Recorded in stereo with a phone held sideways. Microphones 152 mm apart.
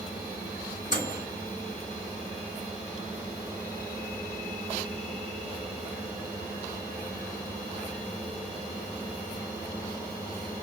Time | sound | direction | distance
0.9 | a microwave | 55° left (ahead or behind) | 2.5 m